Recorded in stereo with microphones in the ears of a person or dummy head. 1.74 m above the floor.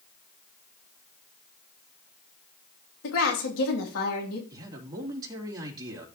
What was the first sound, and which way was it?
A woman speaking, 75° left (ahead or behind).